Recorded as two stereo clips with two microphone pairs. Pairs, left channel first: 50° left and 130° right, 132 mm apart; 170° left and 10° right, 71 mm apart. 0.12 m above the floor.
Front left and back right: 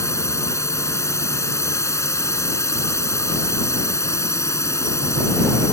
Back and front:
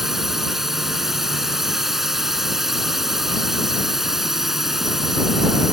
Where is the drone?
70° left.